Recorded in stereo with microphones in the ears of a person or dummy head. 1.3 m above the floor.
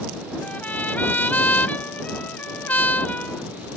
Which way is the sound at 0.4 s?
10° left (ahead or behind).